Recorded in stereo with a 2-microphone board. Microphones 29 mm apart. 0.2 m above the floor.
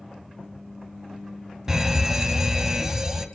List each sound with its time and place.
1.7 s a fire alarm: 20° right (ahead or behind), 2 m